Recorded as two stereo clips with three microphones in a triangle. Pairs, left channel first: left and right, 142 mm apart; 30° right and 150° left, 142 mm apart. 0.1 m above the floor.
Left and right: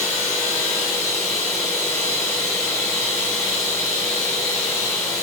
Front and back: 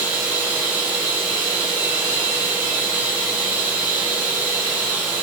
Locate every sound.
0.0 s running water: 130° right, 4 m